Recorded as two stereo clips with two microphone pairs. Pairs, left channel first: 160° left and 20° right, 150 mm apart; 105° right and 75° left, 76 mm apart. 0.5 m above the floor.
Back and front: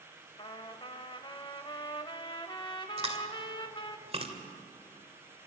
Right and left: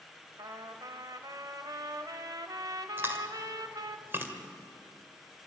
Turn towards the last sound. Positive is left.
turn(degrees=20)